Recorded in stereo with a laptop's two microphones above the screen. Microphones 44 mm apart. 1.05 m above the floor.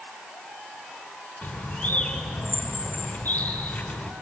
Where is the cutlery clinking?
No cutlery clinking in this recording.